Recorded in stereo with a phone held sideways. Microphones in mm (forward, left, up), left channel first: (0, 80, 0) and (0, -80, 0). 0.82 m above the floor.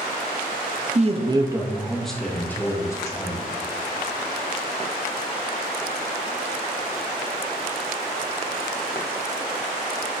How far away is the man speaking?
About 0.5 m.